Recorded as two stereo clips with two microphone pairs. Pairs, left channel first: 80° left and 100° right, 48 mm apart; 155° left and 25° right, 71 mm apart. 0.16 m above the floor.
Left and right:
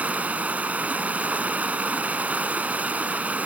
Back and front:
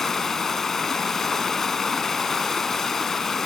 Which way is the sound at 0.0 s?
120° right.